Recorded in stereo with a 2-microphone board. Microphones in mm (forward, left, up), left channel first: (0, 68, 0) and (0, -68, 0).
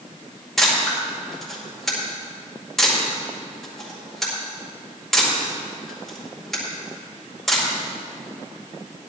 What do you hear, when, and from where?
0.6 s a camera shutter: centre (ahead or behind), 5 m